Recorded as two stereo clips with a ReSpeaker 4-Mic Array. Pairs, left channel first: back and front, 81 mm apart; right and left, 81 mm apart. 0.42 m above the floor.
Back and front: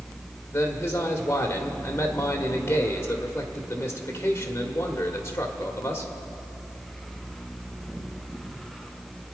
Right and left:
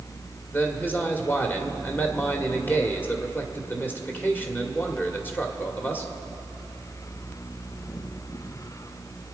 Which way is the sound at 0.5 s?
140° right.